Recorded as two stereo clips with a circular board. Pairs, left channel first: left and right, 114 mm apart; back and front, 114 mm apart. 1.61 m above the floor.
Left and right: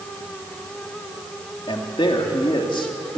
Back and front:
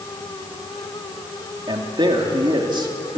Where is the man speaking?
45° left, 3 m.